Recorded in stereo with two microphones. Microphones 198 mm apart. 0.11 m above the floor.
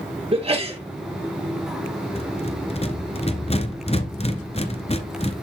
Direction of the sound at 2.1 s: 35° left (ahead or behind).